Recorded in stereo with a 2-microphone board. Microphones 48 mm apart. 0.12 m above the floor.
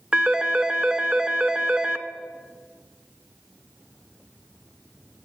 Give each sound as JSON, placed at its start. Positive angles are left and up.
{"t": 0.1, "sound": "a phone ringing", "side_deg": -15, "distance_m": 0.8}